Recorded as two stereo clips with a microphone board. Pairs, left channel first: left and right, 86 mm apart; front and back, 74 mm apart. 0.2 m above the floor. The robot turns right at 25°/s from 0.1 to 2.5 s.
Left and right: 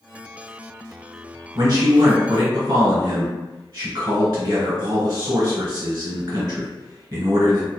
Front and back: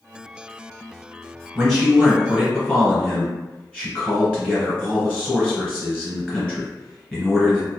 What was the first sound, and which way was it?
A man speaking, 95° right.